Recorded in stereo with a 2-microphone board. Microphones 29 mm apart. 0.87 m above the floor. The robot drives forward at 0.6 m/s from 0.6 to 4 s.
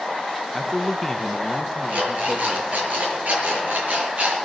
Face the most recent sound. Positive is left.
turn(degrees=-75)  # may be behind; listen again after turning